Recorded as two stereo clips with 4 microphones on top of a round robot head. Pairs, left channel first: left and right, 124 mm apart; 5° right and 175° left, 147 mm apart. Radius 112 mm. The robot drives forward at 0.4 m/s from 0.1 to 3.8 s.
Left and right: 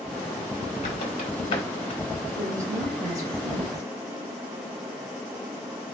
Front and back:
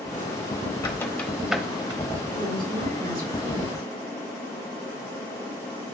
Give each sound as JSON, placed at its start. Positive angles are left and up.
{"t": 0.8, "sound": "a squeak", "azimuth_deg": 50, "distance_m": 0.7}
{"t": 2.4, "sound": "a woman speaking", "azimuth_deg": -150, "distance_m": 2.5}